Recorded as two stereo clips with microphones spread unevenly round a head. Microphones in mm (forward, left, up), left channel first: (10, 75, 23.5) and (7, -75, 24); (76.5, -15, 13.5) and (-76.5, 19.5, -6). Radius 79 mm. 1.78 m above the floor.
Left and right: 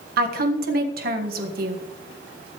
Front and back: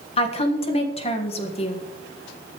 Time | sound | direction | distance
0.2 | a woman speaking | 65° right | 1.6 m